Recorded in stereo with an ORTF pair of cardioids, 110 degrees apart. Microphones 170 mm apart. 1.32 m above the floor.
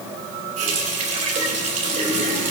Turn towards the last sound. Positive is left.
turn(degrees=-50)